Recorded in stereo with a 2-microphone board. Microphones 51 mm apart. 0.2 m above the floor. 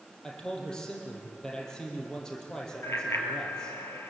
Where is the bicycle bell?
60° left (ahead or behind), 3.5 m.